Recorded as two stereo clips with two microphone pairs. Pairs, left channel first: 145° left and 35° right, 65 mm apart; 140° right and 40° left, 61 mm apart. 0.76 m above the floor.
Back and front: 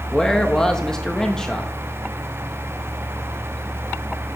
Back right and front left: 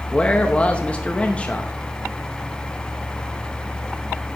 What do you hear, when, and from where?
0.1 s a man speaking: 150° right, 0.8 m